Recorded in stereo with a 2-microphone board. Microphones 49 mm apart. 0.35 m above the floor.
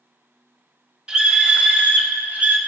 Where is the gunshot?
No gunshot in this recording.